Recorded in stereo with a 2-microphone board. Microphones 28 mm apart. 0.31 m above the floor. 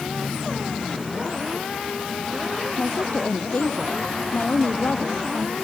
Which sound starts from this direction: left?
A woman speaking, at 2.8 s.